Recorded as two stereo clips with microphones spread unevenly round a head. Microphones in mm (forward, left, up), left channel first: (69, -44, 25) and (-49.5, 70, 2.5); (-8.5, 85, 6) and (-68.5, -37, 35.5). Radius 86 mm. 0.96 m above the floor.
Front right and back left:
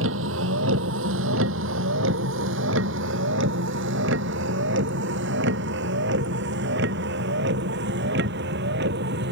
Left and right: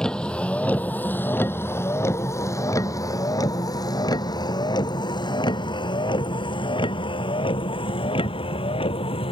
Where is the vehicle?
150° left; by 9.3 s 115° left.